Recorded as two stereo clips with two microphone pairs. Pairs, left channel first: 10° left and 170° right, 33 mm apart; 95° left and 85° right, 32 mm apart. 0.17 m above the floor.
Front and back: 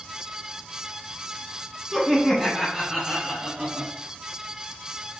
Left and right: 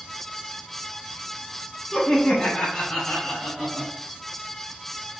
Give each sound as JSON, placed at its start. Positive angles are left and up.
{"t": 1.9, "sound": "laughter", "azimuth_deg": 100, "distance_m": 1.6}